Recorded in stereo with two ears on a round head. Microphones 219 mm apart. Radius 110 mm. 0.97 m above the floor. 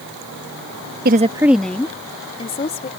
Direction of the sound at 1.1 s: 40° right (ahead or behind).